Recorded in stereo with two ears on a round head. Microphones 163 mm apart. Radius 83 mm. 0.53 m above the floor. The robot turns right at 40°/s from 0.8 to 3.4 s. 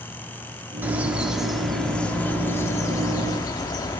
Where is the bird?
10° right (ahead or behind), 1.2 m; by 4.0 s 20° left (ahead or behind), 1.2 m.